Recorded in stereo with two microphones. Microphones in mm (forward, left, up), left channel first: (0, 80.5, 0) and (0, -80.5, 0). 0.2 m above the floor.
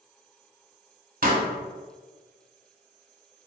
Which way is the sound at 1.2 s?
60° right (ahead or behind).